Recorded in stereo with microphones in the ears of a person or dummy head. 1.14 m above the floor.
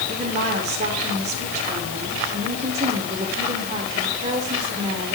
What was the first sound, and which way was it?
A woman speaking, 35° right (ahead or behind).